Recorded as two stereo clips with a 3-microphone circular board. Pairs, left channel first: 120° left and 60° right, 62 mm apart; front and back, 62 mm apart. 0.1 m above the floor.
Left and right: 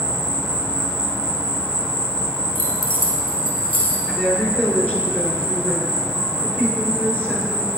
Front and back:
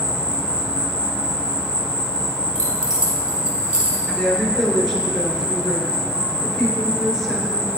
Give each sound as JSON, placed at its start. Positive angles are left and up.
{"t": 0.0, "sound": "an insect", "azimuth_deg": -120, "distance_m": 2.5}
{"t": 2.5, "sound": "keys jangling", "azimuth_deg": -105, "distance_m": 1.4}
{"t": 4.1, "sound": "a woman speaking", "azimuth_deg": 80, "distance_m": 1.4}